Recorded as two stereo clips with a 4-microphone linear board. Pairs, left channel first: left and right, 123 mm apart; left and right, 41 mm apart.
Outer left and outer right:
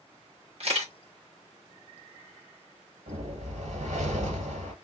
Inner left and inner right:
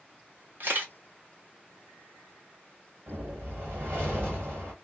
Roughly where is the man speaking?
I don't hear a man speaking.